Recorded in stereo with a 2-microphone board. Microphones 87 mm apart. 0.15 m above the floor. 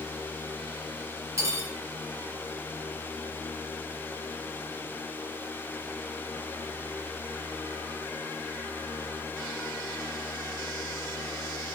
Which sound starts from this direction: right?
Cutlery clinking, at 1.4 s.